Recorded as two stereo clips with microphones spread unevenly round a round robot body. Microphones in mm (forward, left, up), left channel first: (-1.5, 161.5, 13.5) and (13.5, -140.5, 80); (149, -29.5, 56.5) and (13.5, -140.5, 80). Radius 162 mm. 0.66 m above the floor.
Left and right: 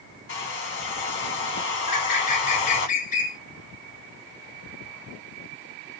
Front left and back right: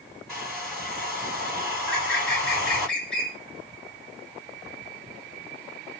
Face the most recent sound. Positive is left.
turn(degrees=110)